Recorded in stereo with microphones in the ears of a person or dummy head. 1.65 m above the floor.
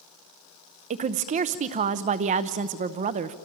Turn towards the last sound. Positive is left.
turn(degrees=-30)  # may be behind; listen again after turning